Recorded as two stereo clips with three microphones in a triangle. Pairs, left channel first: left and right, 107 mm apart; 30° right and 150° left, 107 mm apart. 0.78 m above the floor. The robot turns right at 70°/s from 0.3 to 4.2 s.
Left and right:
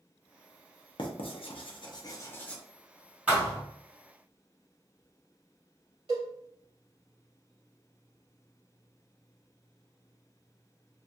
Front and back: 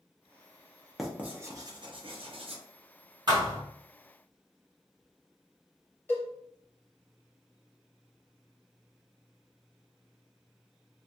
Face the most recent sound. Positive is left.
turn(degrees=-100)